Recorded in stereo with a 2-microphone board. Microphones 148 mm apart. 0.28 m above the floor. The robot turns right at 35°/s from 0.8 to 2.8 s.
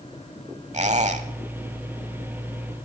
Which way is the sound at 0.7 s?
50° right (ahead or behind).